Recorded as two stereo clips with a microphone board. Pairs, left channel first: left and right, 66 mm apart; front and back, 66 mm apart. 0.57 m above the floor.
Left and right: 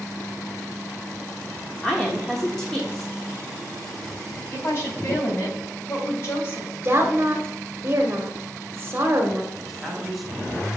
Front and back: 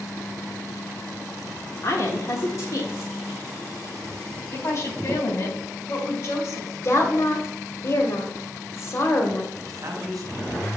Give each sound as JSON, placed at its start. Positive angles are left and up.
{"t": 1.8, "sound": "a woman speaking", "azimuth_deg": 5, "distance_m": 1.0}
{"t": 4.5, "sound": "a woman speaking", "azimuth_deg": 40, "distance_m": 2.5}
{"t": 6.8, "sound": "a woman speaking", "azimuth_deg": -35, "distance_m": 1.2}
{"t": 9.5, "sound": "a man speaking", "azimuth_deg": 180, "distance_m": 2.0}